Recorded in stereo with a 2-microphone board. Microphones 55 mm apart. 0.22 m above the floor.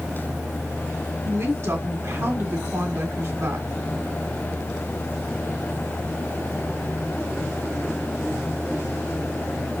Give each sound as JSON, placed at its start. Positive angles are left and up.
{"t": 1.2, "sound": "a woman speaking", "side_deg": -55, "distance_m": 2.0}